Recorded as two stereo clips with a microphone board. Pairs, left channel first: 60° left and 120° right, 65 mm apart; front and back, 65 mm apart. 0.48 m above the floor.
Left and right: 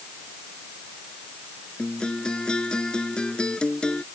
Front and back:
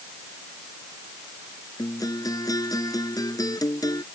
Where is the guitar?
15° right.